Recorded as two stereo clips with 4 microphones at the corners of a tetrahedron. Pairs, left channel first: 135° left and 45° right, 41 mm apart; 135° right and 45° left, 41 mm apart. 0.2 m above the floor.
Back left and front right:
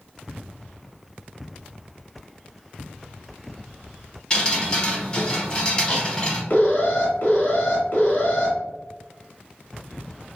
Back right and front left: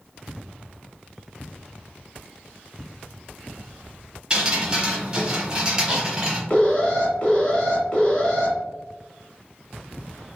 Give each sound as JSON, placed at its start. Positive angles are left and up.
{"t": 4.3, "sound": "dripping", "azimuth_deg": 85, "distance_m": 1.0}
{"t": 6.5, "sound": "an alarm", "azimuth_deg": 165, "distance_m": 1.3}